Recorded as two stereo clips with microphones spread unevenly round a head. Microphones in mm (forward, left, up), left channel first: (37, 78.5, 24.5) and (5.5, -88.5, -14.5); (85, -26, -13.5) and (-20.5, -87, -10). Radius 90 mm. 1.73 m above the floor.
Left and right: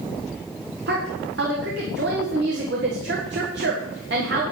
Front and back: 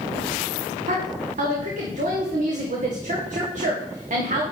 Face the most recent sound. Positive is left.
turn(degrees=-135)